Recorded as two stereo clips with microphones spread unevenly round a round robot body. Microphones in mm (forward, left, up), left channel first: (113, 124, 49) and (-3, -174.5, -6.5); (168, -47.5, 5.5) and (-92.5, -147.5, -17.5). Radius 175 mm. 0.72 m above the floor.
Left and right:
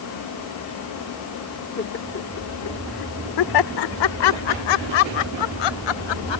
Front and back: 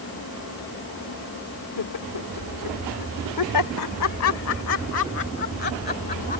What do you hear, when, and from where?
1.8 s laughter: 5° left; by 6.4 s 90° left